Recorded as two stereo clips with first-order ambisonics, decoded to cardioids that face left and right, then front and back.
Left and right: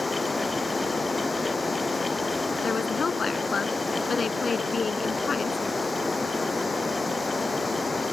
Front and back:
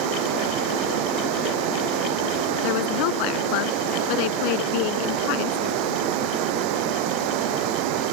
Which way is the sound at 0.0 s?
170° left.